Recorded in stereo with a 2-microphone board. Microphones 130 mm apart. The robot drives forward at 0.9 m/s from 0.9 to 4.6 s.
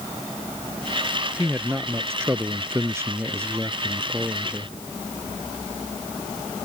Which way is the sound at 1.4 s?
15° right (ahead or behind).